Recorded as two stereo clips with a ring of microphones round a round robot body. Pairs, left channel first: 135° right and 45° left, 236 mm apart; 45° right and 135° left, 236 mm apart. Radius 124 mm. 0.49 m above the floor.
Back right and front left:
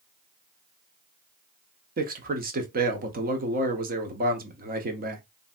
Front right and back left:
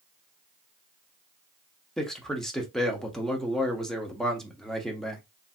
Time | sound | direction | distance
2.0 | a man speaking | 40° left | 0.8 m